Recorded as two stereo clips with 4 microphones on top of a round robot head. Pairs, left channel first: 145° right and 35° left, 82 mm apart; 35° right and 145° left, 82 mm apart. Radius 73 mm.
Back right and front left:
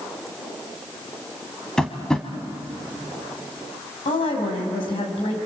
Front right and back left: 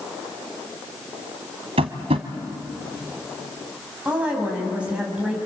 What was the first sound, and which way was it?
Tapping, 135° left.